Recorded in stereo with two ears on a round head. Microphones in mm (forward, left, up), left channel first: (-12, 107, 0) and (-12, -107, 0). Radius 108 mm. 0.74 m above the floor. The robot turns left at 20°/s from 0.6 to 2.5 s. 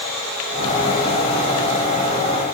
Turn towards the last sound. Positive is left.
No sound to turn to.